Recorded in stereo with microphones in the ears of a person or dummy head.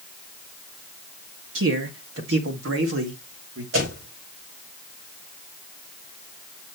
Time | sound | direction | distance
1.6 | a man speaking | 80° right | 1.9 m
3.7 | a door slam | 75° right (ahead or behind) | 4.5 m